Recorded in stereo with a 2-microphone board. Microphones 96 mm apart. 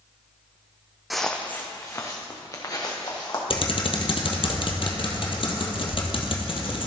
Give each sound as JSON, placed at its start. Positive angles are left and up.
{"t": 1.1, "sound": "footsteps", "side_deg": 0, "distance_m": 0.8}
{"t": 3.5, "sound": "typing on a keyboard", "side_deg": 60, "distance_m": 1.3}